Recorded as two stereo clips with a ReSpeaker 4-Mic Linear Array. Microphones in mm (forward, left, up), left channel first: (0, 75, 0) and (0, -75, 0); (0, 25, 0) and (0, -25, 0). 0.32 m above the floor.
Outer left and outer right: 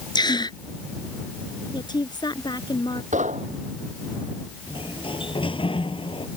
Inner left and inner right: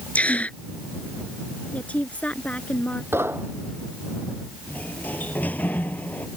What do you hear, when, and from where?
0.1 s a gasp: 30° left (ahead or behind)
1.7 s a woman speaking: 30° left (ahead or behind)
3.1 s knocking: 55° right (ahead or behind)
4.7 s a sliding door: 35° left (ahead or behind)